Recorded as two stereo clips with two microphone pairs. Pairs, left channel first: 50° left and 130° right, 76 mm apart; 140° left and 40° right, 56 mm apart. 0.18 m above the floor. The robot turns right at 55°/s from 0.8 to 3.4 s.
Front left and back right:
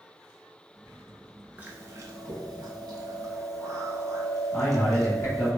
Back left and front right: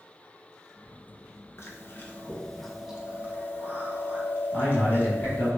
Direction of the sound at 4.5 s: 65° left.